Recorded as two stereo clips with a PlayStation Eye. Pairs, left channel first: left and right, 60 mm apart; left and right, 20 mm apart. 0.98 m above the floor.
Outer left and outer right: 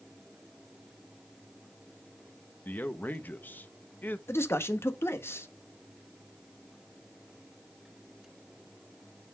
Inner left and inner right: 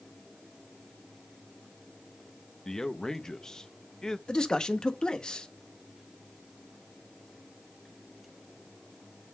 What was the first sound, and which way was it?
A man speaking, 30° left (ahead or behind).